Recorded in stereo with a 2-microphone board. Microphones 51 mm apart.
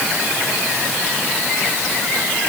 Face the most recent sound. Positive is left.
No sound to turn to.